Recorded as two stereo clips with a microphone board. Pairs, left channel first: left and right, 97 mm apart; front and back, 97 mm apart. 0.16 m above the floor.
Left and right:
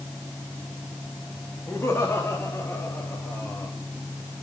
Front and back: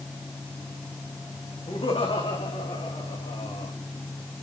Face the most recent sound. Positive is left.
turn(degrees=15)